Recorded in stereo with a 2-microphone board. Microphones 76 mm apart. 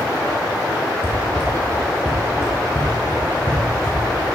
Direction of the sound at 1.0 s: 30° right (ahead or behind).